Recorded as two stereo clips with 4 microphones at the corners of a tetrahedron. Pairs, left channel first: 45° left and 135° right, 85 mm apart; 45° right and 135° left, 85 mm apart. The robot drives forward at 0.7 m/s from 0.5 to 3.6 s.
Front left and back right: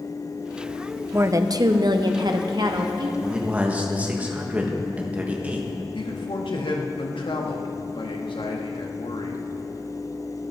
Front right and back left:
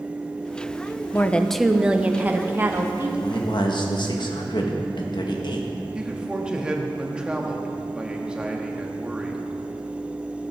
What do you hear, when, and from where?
1.1 s a woman speaking: 95° right, 0.6 m; by 3.1 s 165° right, 1.5 m
3.2 s a man speaking: 55° right, 1.7 m; by 5.8 s 65° right, 1.5 m
6.0 s a man speaking: 55° left, 1.4 m